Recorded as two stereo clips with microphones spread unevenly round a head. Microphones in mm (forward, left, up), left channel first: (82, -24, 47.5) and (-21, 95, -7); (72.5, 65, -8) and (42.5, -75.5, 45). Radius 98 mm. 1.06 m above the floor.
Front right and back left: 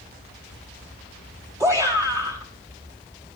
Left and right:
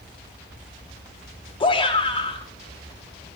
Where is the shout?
80° left, 1.0 m.